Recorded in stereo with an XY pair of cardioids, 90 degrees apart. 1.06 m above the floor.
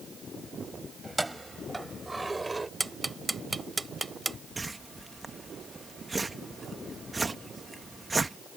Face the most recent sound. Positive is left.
turn(degrees=-25)